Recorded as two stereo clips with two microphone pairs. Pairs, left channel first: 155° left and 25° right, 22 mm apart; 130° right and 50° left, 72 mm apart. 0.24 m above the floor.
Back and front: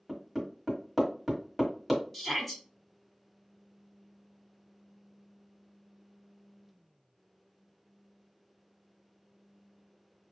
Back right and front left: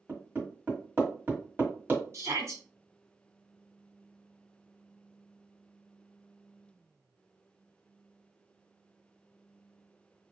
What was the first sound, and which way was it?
Hammering, 40° left.